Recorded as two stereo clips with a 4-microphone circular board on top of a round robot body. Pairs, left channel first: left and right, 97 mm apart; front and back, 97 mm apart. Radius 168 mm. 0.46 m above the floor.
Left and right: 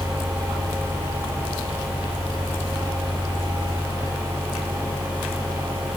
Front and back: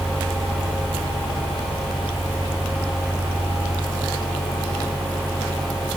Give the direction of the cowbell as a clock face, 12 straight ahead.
I don't hear a cowbell.